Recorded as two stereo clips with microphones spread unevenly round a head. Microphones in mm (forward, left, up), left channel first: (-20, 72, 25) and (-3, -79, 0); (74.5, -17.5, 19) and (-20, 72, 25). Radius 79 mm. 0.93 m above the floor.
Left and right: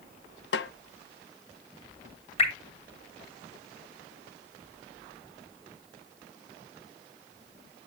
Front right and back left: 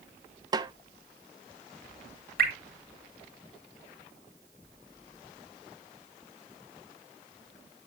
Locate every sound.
0.5 s a snare drum: 75° left, 0.6 m
2.4 s dripping: 145° left, 2.5 m